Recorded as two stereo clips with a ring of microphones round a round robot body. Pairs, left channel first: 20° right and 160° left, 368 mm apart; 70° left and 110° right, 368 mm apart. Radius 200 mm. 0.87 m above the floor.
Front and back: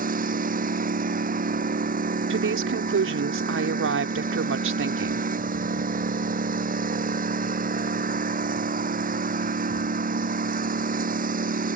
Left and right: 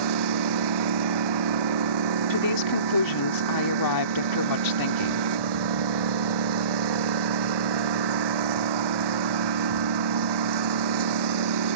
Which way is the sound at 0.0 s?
135° right.